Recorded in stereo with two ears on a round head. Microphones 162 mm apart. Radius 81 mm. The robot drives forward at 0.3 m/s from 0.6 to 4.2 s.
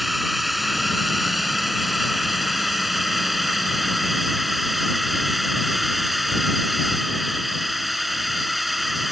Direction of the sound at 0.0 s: Centre (ahead or behind).